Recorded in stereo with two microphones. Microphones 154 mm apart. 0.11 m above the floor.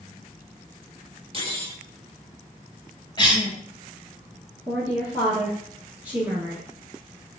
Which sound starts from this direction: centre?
A woman speaking, at 4.7 s.